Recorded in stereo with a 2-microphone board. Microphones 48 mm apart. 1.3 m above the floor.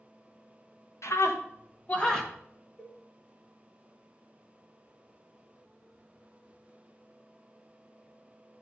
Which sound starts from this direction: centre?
A cowbell, at 2.8 s.